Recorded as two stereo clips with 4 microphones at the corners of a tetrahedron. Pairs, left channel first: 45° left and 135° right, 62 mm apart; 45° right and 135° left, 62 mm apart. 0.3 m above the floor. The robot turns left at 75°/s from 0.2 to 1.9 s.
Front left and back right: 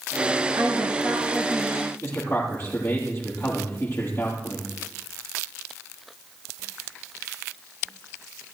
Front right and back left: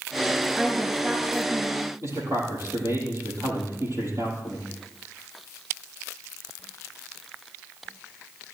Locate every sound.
0.6 s a woman speaking: 140° right, 4.5 m; by 1.9 s 120° left, 4.5 m
2.0 s a man speaking: 95° left, 9 m